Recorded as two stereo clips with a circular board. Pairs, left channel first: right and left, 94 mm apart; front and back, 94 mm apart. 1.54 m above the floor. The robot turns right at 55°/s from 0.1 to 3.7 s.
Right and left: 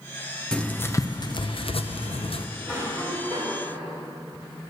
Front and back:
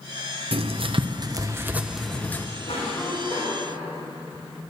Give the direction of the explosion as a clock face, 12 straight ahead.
I don't hear an explosion.